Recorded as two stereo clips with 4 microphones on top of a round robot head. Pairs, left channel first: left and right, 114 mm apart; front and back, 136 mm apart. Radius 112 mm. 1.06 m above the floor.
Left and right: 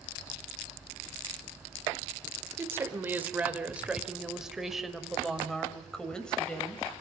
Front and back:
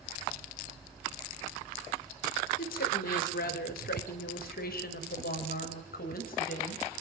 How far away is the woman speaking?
About 4 m.